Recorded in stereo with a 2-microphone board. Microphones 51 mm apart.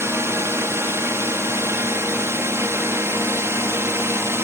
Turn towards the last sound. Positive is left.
turn(degrees=-55)  # may be behind; listen again after turning